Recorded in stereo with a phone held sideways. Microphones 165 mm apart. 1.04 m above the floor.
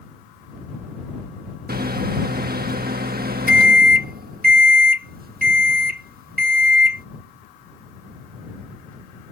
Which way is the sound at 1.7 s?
65° right (ahead or behind).